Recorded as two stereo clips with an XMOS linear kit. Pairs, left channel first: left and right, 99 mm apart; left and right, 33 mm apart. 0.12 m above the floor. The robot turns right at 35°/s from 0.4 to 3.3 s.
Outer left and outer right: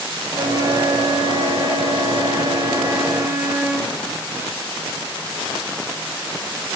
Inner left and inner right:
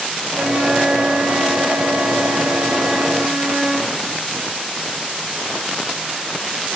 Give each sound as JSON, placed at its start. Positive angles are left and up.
{"t": 0.3, "sound": "a flute", "azimuth_deg": -130, "distance_m": 0.7}